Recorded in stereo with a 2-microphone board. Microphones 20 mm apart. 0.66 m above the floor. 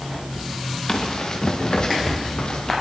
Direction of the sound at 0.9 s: 35° left (ahead or behind).